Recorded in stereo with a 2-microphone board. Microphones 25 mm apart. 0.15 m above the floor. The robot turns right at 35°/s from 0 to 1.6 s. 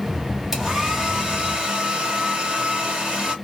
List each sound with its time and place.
0.5 s a hair dryer: 160° right, 1.9 m; by 3.4 s 125° right, 1.9 m